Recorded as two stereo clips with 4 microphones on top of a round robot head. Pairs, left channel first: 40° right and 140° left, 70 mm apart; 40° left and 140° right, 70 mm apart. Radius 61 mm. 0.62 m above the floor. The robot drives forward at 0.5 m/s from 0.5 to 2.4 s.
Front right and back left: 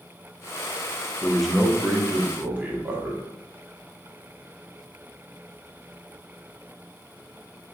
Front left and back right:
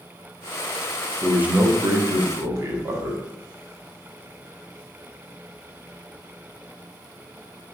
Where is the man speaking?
90° right, 0.5 m; by 3.2 s 165° right, 0.8 m.